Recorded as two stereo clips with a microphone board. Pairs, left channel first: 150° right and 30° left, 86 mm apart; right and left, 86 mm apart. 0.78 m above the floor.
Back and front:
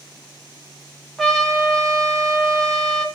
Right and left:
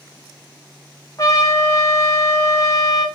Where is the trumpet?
60° right, 1.3 m.